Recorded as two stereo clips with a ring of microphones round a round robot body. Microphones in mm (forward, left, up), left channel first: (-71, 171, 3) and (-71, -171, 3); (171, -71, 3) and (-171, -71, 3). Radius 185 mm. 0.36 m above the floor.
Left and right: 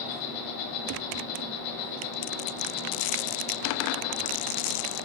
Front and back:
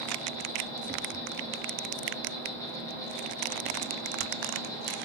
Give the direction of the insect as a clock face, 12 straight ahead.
9 o'clock.